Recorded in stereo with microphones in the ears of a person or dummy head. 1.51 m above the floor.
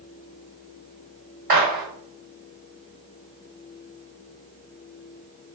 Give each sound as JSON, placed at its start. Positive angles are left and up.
{"t": 1.5, "sound": "a gunshot", "side_deg": -45, "distance_m": 2.0}